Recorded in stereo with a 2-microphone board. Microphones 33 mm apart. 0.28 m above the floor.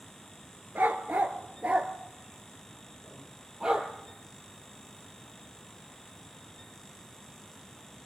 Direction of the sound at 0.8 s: 65° right (ahead or behind).